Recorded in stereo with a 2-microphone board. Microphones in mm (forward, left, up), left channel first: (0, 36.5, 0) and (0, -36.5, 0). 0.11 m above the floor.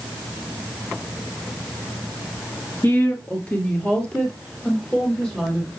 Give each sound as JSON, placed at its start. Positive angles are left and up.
{"t": 2.8, "sound": "a woman speaking", "side_deg": 30, "distance_m": 1.4}